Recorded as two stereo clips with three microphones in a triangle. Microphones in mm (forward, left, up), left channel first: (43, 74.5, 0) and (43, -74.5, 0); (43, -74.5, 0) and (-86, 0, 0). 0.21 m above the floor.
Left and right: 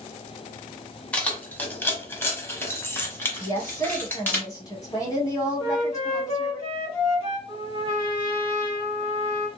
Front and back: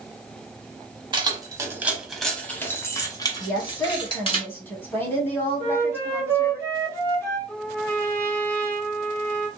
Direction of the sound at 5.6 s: 35° left.